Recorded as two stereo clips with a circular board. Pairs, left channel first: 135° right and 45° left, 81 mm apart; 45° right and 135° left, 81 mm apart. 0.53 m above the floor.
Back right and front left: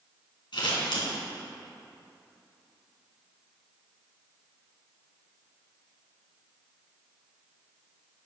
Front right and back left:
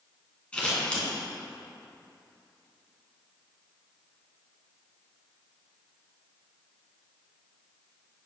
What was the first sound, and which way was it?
Scissors, 120° right.